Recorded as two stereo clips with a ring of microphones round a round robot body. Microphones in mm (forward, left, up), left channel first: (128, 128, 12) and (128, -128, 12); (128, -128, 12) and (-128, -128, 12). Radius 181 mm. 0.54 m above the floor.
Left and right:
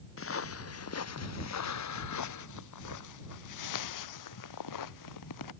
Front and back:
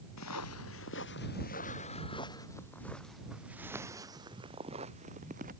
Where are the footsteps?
50° left; by 5.5 s 110° left.